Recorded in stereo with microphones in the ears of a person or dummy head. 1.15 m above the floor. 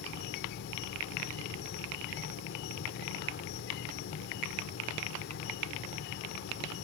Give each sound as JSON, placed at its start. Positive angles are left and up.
{"t": 0.0, "sound": "an insect", "side_deg": 60}